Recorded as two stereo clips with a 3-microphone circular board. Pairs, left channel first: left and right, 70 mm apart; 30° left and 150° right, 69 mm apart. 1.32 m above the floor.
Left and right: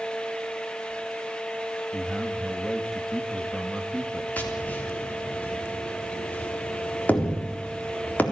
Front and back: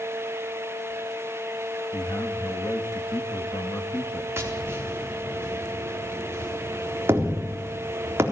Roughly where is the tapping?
Behind left.